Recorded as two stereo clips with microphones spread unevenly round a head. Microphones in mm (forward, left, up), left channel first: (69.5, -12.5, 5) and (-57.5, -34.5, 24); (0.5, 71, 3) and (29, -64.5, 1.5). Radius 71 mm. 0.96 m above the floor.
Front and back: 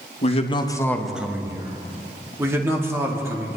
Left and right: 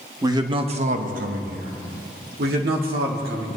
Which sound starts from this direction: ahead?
A man speaking, at 0.2 s.